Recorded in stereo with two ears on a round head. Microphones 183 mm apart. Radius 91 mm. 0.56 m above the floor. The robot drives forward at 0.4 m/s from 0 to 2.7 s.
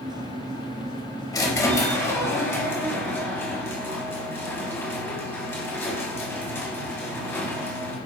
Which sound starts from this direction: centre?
A squeak, at 1.3 s.